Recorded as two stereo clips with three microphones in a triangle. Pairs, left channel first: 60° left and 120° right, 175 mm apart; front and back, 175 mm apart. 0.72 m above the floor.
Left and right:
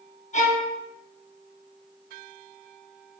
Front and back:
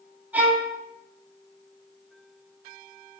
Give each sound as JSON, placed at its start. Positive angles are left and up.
{"t": 0.3, "sound": "a violin", "azimuth_deg": 100, "distance_m": 0.8}